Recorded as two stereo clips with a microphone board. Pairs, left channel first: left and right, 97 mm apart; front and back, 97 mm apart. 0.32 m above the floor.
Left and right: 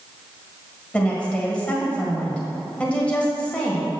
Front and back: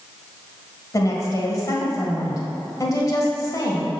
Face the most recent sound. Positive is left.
turn(degrees=20)